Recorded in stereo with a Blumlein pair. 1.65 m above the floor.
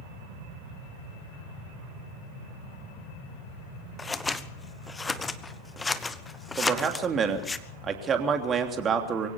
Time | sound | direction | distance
4.0 | scissors | 15° left | 1.0 m
6.6 | a man speaking | 20° right | 3 m